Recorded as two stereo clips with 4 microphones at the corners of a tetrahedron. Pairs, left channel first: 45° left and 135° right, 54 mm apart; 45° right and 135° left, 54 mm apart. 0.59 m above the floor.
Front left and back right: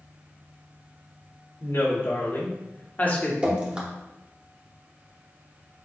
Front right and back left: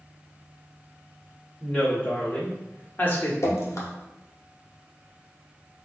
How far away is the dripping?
About 0.9 m.